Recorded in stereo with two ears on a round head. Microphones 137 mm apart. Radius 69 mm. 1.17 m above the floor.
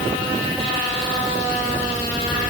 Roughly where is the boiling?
No boiling in this recording.